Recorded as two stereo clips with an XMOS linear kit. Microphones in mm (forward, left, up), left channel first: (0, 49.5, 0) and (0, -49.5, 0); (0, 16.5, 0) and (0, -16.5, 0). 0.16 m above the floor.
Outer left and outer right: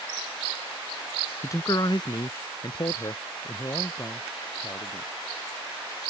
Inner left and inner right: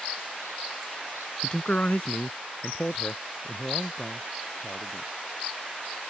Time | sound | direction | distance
1.4 | a man speaking | 30° left (ahead or behind) | ?